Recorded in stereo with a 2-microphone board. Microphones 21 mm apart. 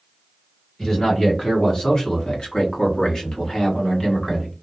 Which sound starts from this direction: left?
A man speaking, at 0.8 s.